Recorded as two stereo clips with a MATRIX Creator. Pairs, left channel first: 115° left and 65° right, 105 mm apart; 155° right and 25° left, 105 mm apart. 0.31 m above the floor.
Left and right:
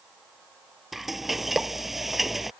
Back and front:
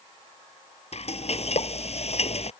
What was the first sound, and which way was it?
Frying, 155° right.